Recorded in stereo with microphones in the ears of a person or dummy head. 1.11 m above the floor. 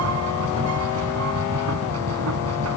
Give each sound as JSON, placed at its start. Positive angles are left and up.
{"t": 0.0, "sound": "a machine running", "side_deg": -80}